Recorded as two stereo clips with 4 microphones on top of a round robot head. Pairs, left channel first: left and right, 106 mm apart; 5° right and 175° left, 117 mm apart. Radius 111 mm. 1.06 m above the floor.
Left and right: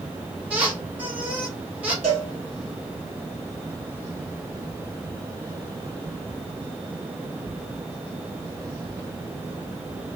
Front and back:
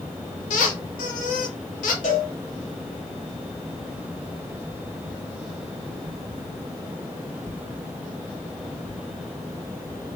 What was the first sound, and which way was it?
A squeak, 10° right.